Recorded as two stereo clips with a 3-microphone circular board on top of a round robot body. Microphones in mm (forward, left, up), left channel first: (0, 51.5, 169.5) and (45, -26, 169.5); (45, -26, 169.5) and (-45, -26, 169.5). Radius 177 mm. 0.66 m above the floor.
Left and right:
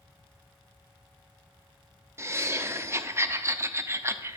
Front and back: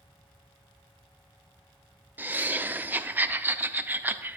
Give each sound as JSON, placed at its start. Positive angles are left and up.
{"t": 2.2, "sound": "laughter", "azimuth_deg": -115, "distance_m": 0.7}